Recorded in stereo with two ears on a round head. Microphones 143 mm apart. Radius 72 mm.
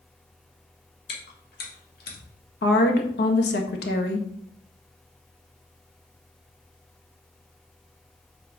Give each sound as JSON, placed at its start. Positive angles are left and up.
{"t": 1.1, "sound": "chewing", "side_deg": 60, "distance_m": 2.5}
{"t": 2.6, "sound": "a woman speaking", "side_deg": 70, "distance_m": 1.6}